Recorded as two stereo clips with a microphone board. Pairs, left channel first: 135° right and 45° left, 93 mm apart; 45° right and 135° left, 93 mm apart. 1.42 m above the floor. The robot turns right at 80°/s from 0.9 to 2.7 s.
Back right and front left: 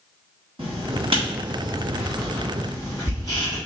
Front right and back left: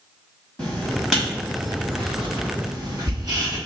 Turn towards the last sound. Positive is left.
turn(degrees=175)